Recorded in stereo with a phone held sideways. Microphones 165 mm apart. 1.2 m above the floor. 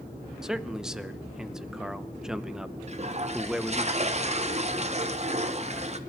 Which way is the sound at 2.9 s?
45° right (ahead or behind).